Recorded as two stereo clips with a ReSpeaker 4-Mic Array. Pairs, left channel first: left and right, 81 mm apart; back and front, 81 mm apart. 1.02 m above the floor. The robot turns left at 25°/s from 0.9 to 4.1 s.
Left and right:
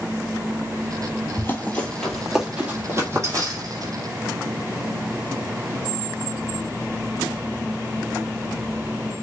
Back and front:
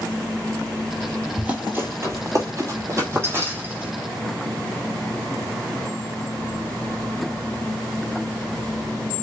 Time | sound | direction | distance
1.4 | running footsteps | 65° left | 1.1 m